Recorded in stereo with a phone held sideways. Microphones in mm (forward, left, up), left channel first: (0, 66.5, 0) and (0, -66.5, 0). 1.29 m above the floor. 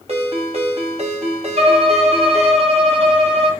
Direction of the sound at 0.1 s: 50° right (ahead or behind).